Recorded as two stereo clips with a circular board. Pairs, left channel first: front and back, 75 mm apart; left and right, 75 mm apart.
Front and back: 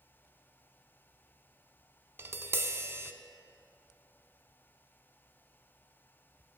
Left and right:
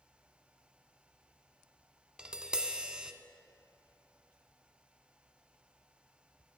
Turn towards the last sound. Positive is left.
turn(degrees=-160)